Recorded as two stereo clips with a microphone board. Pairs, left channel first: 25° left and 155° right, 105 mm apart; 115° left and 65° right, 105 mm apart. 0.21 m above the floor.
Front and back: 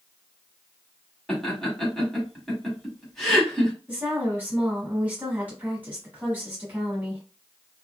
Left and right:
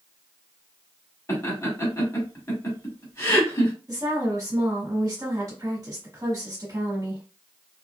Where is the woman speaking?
90° right, 1.2 m.